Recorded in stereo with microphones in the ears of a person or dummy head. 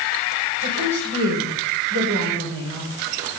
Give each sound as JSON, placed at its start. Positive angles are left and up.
{"t": 0.6, "sound": "a woman speaking", "side_deg": -85, "distance_m": 7.0}